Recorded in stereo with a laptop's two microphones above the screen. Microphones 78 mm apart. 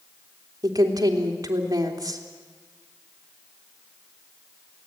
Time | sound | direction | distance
0.6 | a woman speaking | 55° right (ahead or behind) | 3 m